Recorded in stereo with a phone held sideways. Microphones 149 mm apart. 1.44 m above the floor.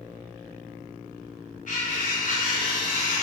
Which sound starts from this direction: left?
Cutlery clinking, at 1.7 s.